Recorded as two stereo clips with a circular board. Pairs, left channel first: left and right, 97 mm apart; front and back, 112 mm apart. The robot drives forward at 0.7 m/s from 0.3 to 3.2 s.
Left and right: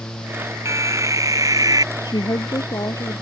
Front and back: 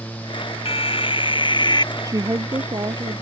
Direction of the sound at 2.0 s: 125° left.